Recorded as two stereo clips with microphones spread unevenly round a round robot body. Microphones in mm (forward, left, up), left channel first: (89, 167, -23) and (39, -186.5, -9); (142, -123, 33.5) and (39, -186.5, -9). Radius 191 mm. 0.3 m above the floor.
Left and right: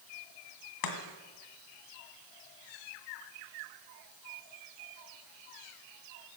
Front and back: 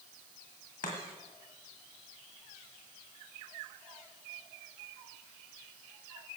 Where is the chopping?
65° left, 2.5 m.